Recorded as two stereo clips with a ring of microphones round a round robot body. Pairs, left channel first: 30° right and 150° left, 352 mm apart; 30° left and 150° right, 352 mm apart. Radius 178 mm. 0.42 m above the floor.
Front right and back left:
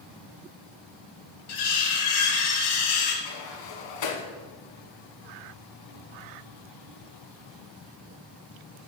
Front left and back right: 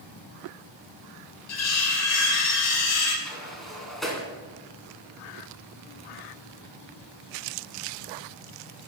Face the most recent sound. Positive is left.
turn(degrees=-60)